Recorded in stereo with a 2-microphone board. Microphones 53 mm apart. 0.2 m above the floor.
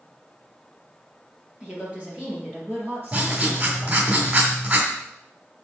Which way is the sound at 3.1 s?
35° right (ahead or behind).